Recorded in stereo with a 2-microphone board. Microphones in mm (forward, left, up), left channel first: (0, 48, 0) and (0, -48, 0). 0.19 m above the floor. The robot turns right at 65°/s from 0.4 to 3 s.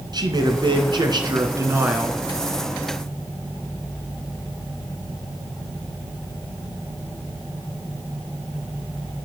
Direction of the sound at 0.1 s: 115° right.